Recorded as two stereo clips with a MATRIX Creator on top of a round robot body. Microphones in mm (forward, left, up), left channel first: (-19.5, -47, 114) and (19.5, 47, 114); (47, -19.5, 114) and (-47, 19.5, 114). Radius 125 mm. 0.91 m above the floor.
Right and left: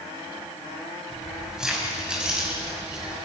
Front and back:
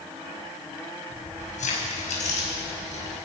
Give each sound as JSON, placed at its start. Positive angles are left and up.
{"t": 1.1, "sound": "keys jangling", "azimuth_deg": -20, "distance_m": 5.0}